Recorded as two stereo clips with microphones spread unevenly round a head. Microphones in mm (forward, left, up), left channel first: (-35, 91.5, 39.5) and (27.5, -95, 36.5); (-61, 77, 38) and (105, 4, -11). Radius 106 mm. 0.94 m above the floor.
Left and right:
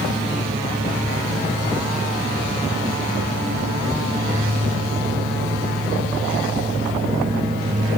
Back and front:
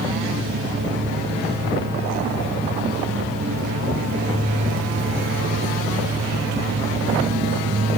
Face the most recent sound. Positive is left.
No sound to turn to.